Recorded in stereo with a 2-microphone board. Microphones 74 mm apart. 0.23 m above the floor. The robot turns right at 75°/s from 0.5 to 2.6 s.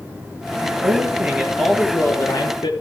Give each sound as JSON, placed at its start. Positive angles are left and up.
{"t": 0.6, "sound": "a man speaking", "azimuth_deg": -65, "distance_m": 4.0}